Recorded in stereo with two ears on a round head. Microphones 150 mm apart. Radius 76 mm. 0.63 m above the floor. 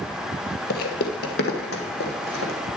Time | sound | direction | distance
0.7 | footsteps | 60° left (ahead or behind) | 1.1 m